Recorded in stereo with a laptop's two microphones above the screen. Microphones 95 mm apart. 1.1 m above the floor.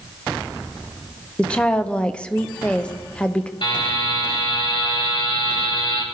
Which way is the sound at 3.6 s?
60° left (ahead or behind).